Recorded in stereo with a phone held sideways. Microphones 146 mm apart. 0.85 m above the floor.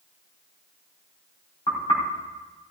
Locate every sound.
1.7 s knocking: 40° left (ahead or behind), 4 m